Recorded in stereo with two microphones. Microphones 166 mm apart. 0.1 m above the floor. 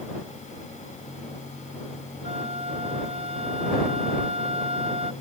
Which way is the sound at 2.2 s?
40° right (ahead or behind).